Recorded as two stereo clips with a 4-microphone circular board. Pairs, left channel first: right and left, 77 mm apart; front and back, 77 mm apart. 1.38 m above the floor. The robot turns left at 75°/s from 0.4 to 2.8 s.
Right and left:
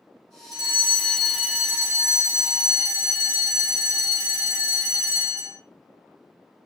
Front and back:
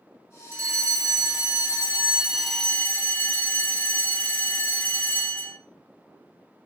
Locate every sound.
0.5 s a fire alarm: 120° right, 3 m; by 5.6 s 65° left, 3 m